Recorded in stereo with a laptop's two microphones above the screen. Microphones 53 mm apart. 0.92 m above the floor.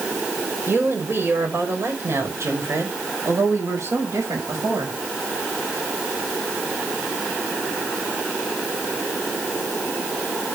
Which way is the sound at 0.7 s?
45° right (ahead or behind).